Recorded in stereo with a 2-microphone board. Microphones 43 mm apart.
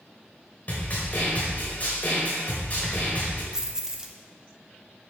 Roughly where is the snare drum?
Left.